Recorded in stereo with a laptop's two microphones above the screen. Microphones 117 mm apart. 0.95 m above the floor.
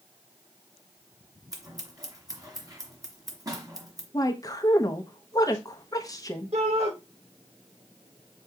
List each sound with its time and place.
1.5 s scissors: 30° right (ahead or behind), 1.5 m
4.1 s a woman speaking: 30° left (ahead or behind), 0.9 m
6.5 s a shout: 60° right (ahead or behind), 3.5 m